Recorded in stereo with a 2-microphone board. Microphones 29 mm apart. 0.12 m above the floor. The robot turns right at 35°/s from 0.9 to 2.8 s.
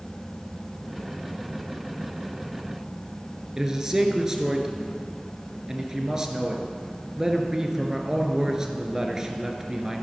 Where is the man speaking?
20° right (ahead or behind), 1.8 m.